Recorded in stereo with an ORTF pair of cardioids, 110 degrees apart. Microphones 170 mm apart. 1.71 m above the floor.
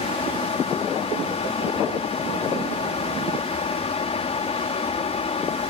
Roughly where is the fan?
Ahead left.